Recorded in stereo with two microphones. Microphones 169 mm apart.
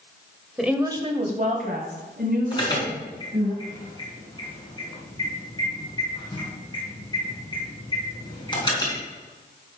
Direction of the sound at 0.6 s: Centre (ahead or behind).